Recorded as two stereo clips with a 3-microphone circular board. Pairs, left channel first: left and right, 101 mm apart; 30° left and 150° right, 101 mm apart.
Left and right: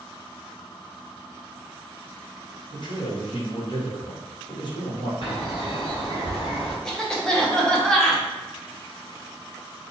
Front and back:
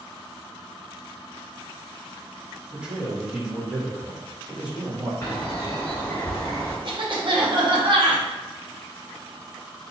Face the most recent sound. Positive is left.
turn(degrees=175)